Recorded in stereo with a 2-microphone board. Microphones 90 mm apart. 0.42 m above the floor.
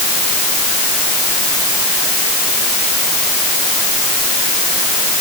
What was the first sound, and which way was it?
Only background noise.